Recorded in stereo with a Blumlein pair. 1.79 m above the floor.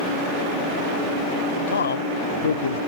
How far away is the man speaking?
About 0.7 m.